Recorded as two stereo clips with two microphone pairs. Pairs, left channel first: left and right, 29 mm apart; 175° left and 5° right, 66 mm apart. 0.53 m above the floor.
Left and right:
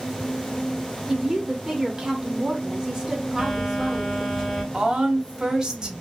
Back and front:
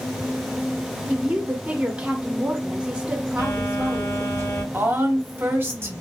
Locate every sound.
1.1 s a woman speaking: 55° right, 0.8 m
3.4 s a phone buzzing: 165° left, 2.5 m
4.7 s a woman speaking: 40° right, 0.9 m